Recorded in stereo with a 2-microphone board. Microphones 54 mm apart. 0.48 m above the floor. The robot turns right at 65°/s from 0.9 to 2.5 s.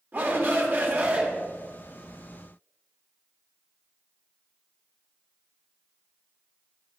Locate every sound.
0.1 s a shout: 35° right (ahead or behind), 1.5 m; by 1.3 s 25° right (ahead or behind), 1.5 m